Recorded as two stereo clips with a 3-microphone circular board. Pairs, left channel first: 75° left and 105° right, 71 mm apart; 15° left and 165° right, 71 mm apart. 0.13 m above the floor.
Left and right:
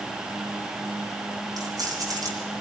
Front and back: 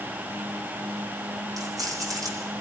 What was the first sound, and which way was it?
Keys jangling, 135° right.